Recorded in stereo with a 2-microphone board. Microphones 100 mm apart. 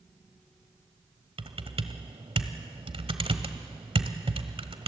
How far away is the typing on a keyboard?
About 1.3 m.